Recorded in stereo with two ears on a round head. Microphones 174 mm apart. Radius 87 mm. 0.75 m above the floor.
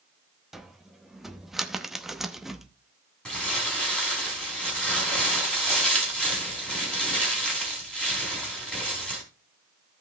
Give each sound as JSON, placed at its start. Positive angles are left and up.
{"t": 0.5, "sound": "a cupboard door", "side_deg": 0, "distance_m": 0.8}
{"t": 3.2, "sound": "crumpling", "side_deg": 5, "distance_m": 4.0}